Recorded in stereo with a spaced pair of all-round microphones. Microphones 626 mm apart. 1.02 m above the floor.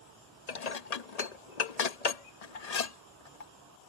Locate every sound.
0.5 s dishes clattering: 80° left